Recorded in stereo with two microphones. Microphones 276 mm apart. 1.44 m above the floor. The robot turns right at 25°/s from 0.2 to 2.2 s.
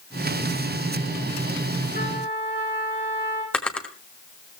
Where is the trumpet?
30° left (ahead or behind), 9 m; by 3.4 s 35° left (ahead or behind), 9 m.